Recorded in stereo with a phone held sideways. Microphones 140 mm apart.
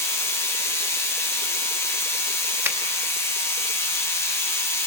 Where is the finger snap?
15° right (ahead or behind), 0.9 m.